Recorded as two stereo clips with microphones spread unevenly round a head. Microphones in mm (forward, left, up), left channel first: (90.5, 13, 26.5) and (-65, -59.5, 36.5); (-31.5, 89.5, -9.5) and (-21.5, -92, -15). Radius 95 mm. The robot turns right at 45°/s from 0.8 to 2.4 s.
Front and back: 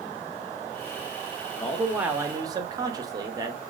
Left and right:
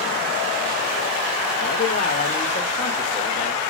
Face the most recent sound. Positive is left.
turn(degrees=140)